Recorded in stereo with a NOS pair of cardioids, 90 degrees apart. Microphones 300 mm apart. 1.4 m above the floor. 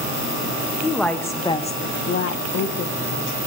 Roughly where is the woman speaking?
Ahead.